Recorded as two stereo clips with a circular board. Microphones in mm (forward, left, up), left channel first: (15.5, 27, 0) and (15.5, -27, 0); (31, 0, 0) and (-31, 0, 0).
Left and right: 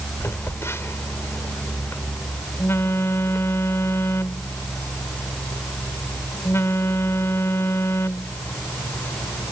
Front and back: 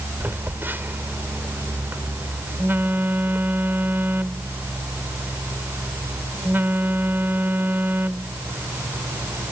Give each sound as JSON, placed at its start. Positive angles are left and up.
{"t": 0.2, "sound": "a phone buzzing", "azimuth_deg": 125}